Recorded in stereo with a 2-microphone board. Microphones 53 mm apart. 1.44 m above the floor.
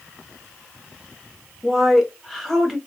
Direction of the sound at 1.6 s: 5° left (ahead or behind).